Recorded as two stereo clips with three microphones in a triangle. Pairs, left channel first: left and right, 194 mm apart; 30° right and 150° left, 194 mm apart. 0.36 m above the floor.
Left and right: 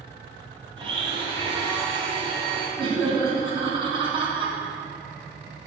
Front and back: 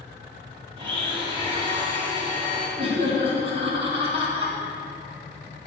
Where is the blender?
150° right, 3.5 m.